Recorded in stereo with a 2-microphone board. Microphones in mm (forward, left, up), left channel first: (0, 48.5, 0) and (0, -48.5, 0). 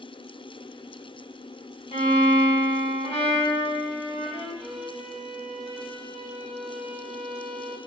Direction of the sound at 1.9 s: 75° left (ahead or behind).